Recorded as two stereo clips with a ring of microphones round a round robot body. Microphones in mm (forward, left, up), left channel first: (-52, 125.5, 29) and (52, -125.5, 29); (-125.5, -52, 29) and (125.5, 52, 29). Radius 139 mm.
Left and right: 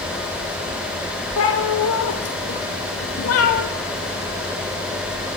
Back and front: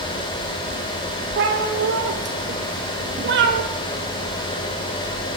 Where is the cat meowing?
75° left, 5 m.